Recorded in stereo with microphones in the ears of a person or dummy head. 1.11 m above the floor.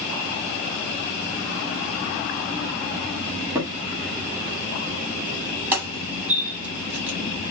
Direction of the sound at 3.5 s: 15° right (ahead or behind).